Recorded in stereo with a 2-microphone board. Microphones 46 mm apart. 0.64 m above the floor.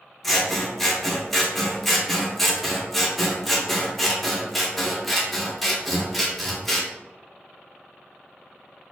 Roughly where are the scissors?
Centre.